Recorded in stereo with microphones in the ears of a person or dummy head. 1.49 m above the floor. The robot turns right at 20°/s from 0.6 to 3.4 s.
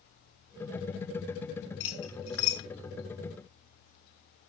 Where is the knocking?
I don't hear knocking.